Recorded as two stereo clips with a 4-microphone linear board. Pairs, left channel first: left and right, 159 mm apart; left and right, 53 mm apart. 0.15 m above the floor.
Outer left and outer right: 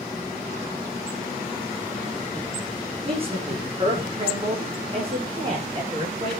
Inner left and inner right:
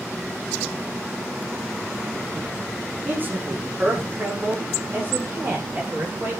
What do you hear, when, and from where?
3.0 s a man speaking: 35° right (ahead or behind), 7 m